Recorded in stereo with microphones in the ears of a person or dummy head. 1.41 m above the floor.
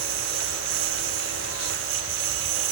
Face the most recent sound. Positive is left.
turn(degrees=-80)